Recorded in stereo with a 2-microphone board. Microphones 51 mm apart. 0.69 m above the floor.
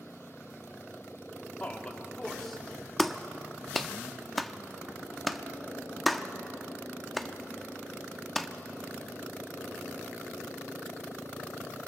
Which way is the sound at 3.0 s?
Centre (ahead or behind).